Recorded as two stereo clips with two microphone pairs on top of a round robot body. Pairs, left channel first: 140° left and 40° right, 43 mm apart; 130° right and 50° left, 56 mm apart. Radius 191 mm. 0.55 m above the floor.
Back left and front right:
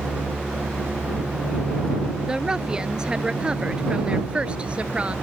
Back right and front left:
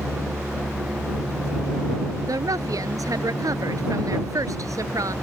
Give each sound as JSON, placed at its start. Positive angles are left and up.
{"t": 2.2, "sound": "a woman speaking", "azimuth_deg": 35}